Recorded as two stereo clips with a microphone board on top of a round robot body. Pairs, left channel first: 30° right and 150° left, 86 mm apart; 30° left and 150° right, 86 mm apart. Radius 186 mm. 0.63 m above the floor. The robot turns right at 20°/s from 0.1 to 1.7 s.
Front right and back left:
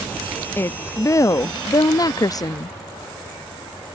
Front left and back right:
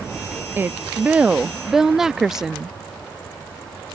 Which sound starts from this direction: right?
A woman speaking, at 0.6 s.